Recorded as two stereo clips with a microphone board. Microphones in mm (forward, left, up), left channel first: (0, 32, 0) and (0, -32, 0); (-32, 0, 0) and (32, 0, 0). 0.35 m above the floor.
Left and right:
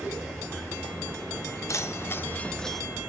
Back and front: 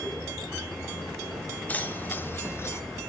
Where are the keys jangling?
120° left, 1.3 m; by 2.8 s straight behind, 0.8 m.